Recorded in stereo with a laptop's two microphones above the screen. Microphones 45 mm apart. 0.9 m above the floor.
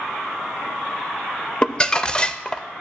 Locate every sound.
1.6 s crumpling: 20° left (ahead or behind), 0.6 m